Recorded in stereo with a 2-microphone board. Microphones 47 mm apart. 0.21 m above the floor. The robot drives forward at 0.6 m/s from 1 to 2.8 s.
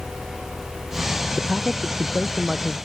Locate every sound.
1.4 s a man speaking: 15° right (ahead or behind)